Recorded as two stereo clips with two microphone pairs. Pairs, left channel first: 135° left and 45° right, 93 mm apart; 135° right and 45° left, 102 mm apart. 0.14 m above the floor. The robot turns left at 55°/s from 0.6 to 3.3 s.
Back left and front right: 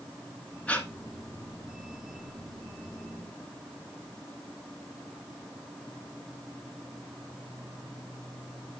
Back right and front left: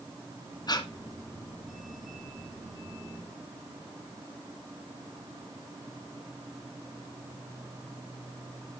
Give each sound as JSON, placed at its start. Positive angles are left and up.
{"t": 0.7, "sound": "breathing", "azimuth_deg": -155, "distance_m": 1.3}